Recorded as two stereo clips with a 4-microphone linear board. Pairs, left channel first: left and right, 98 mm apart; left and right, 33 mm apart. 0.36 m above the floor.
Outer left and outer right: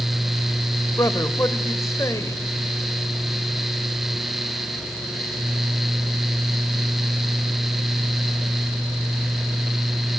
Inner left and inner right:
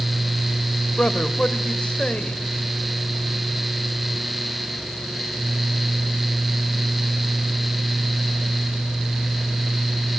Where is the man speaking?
35° left (ahead or behind), 1.7 m.